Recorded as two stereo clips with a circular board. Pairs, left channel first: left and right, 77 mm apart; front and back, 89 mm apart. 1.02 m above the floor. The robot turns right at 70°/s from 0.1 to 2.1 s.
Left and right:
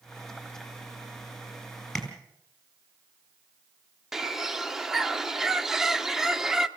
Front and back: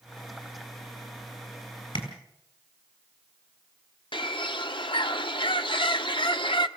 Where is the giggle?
I don't hear a giggle.